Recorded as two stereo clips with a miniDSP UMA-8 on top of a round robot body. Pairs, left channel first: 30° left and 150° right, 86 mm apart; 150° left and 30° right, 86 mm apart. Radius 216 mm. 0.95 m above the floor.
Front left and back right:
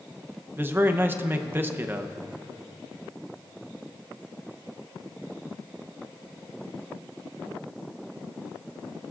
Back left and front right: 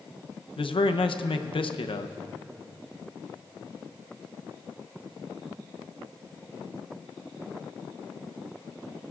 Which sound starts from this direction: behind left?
A man speaking, at 0.6 s.